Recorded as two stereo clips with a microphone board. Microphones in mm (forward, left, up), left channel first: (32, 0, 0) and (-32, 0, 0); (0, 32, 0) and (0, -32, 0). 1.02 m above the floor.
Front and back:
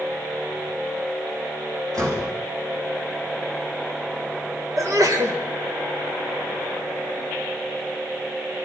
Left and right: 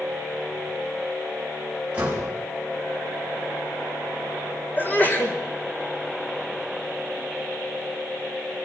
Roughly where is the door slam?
Behind.